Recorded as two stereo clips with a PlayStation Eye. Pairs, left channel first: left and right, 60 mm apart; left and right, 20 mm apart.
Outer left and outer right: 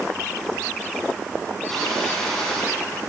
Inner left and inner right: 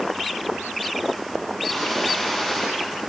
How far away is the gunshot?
About 6 m.